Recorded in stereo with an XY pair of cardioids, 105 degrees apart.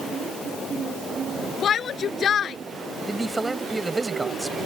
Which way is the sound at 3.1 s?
20° right.